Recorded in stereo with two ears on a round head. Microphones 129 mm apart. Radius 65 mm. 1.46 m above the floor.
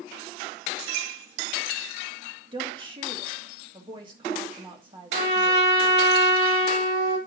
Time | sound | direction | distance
2.5 | a woman speaking | 35° right (ahead or behind) | 1.8 m
5.1 | a trumpet | 80° right | 3 m